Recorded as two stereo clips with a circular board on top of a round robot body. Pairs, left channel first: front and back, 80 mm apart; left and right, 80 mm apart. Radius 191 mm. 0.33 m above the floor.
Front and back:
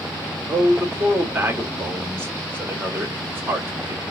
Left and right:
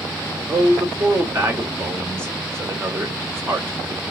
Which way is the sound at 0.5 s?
130° right.